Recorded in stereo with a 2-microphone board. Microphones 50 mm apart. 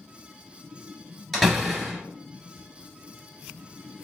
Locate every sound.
1.3 s a door slam: centre (ahead or behind), 2.5 m